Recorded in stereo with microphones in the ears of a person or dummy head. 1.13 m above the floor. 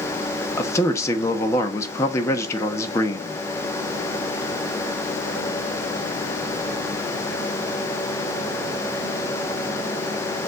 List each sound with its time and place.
0.6 s a man speaking: 20° left (ahead or behind), 1.2 m